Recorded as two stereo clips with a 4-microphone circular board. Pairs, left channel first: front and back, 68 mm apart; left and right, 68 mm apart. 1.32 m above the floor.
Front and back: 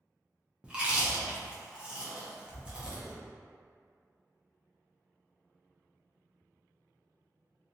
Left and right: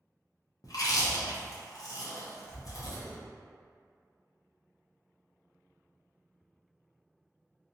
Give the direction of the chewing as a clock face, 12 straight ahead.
8 o'clock.